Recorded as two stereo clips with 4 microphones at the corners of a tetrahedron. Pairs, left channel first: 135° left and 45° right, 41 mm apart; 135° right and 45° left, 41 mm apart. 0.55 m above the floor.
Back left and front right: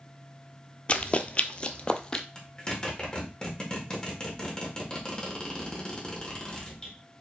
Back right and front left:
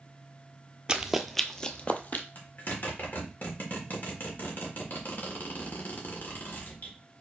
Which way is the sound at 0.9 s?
100° left.